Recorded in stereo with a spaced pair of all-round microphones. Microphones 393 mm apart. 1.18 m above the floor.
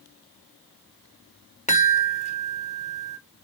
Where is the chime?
15° left (ahead or behind), 0.6 m.